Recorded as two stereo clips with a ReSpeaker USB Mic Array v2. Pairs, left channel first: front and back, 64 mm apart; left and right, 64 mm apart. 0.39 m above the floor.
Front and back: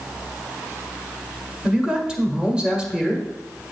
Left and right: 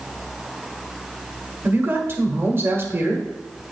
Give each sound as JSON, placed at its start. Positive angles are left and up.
{"t": 1.6, "sound": "a man speaking", "azimuth_deg": -110, "distance_m": 1.2}